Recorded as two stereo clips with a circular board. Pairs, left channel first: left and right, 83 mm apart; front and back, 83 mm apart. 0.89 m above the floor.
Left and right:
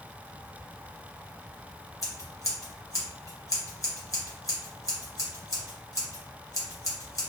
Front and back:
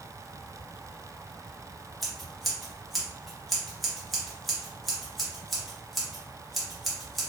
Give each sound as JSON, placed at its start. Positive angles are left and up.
{"t": 2.0, "sound": "scissors", "azimuth_deg": 90, "distance_m": 0.9}